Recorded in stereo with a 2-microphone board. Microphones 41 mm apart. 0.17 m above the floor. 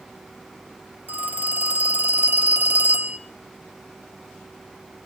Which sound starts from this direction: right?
A phone ringing, at 1.1 s.